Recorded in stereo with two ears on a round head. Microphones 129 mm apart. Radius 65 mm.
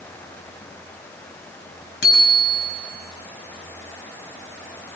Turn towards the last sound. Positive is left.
turn(degrees=85)